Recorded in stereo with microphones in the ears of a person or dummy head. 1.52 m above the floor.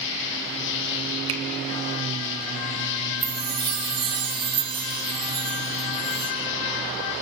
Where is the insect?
65° left (ahead or behind), 3 m.